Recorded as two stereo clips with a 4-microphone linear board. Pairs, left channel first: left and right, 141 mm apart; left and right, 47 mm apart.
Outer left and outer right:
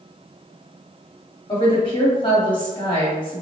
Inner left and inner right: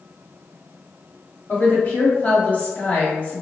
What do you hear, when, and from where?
1.5 s a woman speaking: 35° left (ahead or behind), 1.5 m